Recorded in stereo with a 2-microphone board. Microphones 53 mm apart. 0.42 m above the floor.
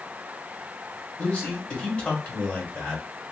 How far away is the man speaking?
About 1.6 m.